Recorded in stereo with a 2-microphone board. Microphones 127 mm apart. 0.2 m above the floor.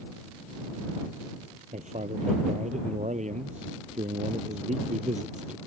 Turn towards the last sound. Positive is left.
turn(degrees=-70)  # may be behind; listen again after turning